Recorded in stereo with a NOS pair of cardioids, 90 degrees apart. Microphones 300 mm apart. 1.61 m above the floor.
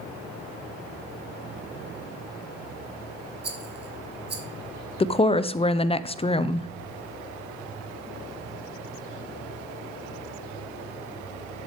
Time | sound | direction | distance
3.4 | a rattle | 35° right | 1.6 m
5.0 | a woman speaking | 20° left | 0.6 m